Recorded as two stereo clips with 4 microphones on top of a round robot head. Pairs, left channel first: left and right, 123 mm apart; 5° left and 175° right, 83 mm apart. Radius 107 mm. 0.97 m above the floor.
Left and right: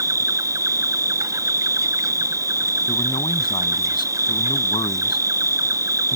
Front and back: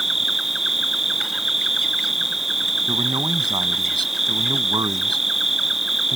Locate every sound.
0.0 s an insect: 90° right
2.9 s a man speaking: 150° left